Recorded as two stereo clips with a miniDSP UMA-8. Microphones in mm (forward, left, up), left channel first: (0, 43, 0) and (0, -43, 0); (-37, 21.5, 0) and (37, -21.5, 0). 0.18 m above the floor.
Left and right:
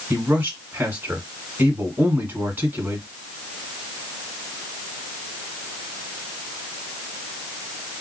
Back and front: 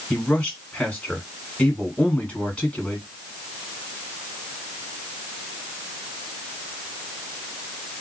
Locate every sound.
0.1 s a man speaking: 140° right, 1.8 m